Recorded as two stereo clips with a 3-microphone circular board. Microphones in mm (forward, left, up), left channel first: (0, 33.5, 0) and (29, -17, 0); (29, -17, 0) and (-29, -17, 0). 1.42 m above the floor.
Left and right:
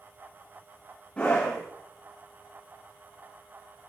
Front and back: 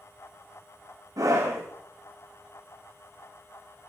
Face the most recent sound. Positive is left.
turn(degrees=-170)